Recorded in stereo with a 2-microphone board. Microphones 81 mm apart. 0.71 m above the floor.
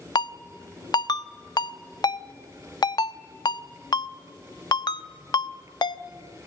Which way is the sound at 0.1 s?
55° left (ahead or behind).